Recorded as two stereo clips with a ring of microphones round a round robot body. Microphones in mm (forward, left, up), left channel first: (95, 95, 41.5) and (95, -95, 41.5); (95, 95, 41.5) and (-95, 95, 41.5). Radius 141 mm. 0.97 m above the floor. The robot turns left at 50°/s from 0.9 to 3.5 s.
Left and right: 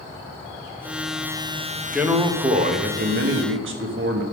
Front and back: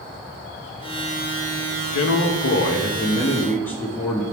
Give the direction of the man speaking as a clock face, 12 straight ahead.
12 o'clock.